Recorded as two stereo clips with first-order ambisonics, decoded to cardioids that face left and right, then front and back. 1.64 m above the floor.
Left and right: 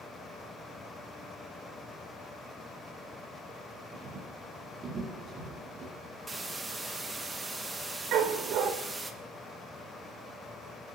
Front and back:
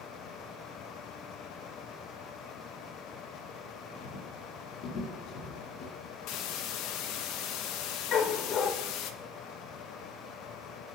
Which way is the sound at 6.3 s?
10° right.